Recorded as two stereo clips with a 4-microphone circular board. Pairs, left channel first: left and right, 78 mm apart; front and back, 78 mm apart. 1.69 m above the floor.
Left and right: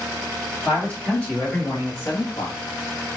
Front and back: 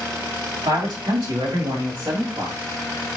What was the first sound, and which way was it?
A man speaking, 165° left.